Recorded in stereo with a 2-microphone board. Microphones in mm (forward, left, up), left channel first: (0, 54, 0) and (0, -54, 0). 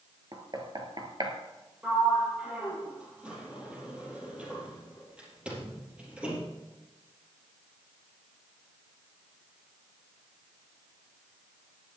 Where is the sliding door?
10° right (ahead or behind), 4 m.